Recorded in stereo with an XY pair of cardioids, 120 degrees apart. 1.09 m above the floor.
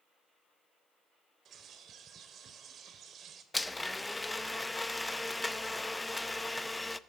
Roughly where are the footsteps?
I don't hear footsteps.